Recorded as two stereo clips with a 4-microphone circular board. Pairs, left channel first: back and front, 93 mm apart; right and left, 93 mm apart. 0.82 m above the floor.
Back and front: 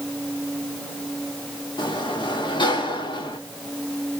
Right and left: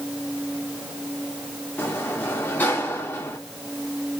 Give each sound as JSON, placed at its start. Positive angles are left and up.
{"t": 1.8, "sound": "a sliding door", "azimuth_deg": -155, "distance_m": 1.2}